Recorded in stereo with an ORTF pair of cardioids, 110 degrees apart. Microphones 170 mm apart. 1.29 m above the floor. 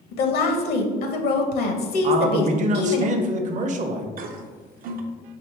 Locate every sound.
0.1 s a woman speaking: 70° left, 0.9 m
2.0 s a man speaking: 50° right, 0.7 m
4.2 s a toilet flushing: 60° right, 0.6 m